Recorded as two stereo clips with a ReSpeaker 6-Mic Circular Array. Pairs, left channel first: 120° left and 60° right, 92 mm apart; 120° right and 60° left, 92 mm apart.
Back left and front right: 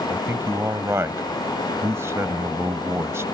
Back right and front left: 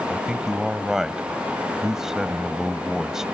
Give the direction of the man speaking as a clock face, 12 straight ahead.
1 o'clock.